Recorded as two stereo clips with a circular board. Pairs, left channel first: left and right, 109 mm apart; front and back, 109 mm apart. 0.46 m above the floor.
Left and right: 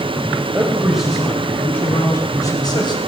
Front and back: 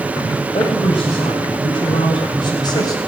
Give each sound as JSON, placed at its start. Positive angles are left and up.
{"t": 0.5, "sound": "a man speaking", "azimuth_deg": -15, "distance_m": 2.5}